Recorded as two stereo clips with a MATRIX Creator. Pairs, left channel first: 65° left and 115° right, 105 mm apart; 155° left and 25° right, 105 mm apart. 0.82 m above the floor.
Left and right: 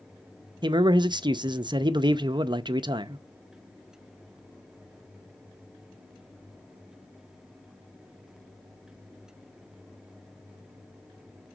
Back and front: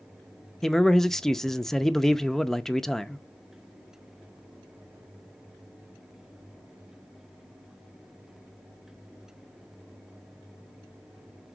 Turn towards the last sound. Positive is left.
turn(degrees=-115)